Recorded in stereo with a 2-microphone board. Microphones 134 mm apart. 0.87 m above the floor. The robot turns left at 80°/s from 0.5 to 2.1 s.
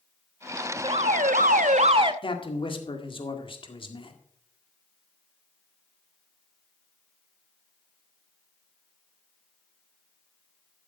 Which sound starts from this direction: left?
A man speaking, at 2.2 s.